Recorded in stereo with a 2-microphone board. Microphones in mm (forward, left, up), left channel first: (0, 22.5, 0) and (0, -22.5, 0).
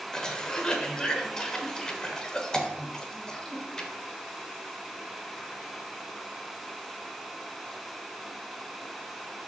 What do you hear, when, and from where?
0.1 s a cough: 15° left (ahead or behind), 1.1 m